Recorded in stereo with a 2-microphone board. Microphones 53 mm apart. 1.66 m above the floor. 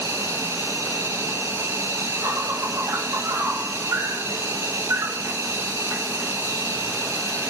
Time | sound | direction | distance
0.0 | an insect | 70° right (ahead or behind) | 0.8 m